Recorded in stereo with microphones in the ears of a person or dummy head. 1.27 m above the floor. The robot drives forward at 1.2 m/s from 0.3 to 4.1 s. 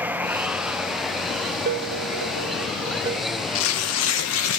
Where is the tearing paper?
75° left (ahead or behind), 1.0 m; by 4.6 s 65° left (ahead or behind), 1.1 m.